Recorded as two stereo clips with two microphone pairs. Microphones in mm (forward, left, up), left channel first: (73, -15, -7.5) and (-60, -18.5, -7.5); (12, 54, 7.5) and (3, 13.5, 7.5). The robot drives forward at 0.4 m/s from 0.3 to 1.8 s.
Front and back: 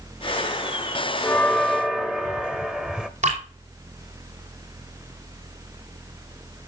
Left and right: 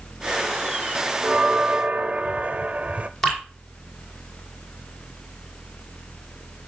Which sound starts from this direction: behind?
Dripping, at 3.2 s.